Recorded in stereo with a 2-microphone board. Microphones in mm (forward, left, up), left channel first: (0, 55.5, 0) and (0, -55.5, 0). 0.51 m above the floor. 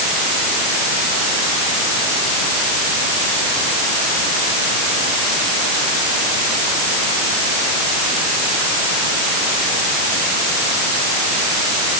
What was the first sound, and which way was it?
Only background noise.